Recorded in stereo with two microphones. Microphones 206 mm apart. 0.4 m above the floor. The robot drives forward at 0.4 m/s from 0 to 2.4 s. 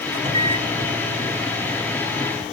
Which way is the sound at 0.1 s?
35° right (ahead or behind).